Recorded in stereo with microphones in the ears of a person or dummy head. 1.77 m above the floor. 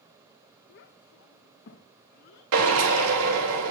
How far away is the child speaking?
About 0.8 m.